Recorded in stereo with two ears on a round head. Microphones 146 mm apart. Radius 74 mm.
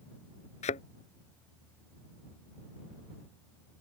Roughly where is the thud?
Left.